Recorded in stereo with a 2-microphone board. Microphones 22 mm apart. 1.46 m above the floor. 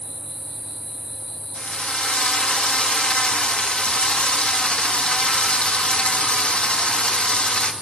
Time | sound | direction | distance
1.6 | a drill | 70° left (ahead or behind) | 2 m